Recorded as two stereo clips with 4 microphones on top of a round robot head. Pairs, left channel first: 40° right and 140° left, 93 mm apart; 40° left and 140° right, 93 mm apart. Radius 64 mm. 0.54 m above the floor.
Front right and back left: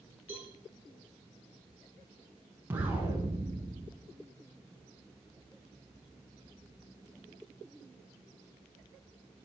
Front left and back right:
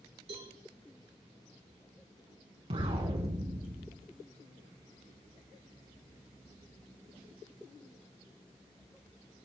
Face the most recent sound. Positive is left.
turn(degrees=-150)